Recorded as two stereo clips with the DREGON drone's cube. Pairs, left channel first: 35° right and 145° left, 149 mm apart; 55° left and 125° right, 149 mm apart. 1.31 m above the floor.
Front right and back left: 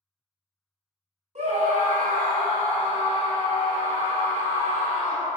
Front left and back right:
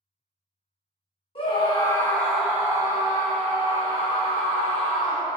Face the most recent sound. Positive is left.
turn(degrees=-140)